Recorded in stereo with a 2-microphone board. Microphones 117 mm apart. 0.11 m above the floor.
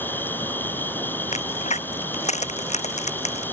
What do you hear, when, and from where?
0.0 s an insect: 15° left (ahead or behind)
1.3 s a crack: 80° left